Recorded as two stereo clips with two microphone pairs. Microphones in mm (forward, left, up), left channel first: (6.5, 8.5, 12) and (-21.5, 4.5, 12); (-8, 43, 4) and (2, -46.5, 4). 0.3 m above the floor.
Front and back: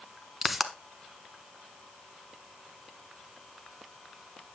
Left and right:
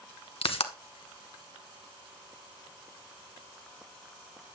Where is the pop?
105° left, 0.7 m.